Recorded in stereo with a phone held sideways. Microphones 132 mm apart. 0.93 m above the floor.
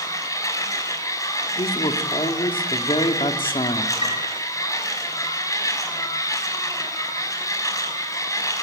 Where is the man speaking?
45° left (ahead or behind), 2.5 m.